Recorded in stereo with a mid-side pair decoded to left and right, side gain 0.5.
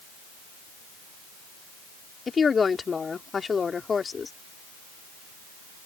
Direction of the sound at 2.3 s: 30° left.